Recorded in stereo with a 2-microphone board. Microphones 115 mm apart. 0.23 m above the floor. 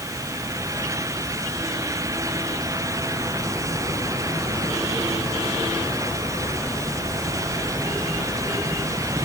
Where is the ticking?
No ticking in this recording.